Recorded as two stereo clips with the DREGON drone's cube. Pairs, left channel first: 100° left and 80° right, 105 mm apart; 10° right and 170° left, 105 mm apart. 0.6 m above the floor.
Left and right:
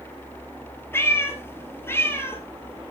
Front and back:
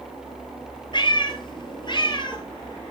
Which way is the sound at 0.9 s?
30° left.